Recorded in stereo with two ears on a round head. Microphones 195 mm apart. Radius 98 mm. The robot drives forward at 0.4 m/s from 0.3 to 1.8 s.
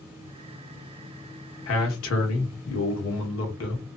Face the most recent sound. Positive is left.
turn(degrees=70)  # may be behind; listen again after turning